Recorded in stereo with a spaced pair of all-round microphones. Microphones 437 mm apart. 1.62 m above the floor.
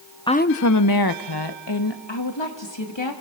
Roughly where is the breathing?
I don't hear breathing.